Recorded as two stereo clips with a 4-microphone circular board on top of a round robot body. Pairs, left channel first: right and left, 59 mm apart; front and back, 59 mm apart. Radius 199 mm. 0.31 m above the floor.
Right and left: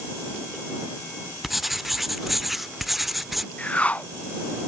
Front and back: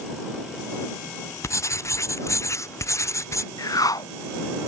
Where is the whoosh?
20° right.